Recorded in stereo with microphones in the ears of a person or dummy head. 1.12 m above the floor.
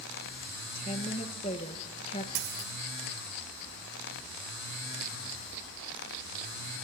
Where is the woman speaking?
30° left (ahead or behind), 0.9 m.